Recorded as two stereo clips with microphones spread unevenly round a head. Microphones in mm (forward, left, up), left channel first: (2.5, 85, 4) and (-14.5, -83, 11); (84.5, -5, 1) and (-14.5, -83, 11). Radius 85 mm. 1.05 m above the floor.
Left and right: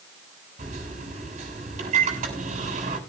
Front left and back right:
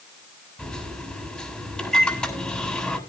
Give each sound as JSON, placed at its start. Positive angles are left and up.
{"t": 0.6, "sound": "a microwave", "azimuth_deg": -45, "distance_m": 7.0}